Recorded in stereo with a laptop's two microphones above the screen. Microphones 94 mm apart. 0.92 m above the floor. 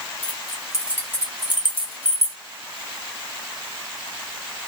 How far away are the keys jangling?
About 1.2 m.